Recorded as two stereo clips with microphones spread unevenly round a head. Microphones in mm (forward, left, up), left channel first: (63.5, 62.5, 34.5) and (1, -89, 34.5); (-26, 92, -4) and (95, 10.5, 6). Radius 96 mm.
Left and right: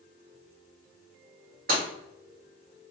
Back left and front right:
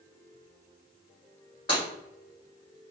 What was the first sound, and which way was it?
Breaking glass, 150° right.